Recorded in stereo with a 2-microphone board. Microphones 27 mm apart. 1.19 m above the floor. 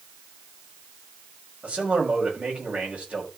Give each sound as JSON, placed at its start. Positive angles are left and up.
{"t": 1.6, "sound": "a man speaking", "side_deg": -55, "distance_m": 6.5}